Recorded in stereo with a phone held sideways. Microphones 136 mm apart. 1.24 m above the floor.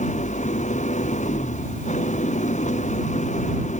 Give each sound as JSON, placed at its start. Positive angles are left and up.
{"t": 0.0, "sound": "an engine running", "side_deg": 65}